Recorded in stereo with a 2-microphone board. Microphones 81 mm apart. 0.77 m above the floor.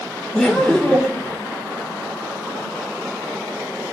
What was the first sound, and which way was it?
Laughter, 5° left (ahead or behind).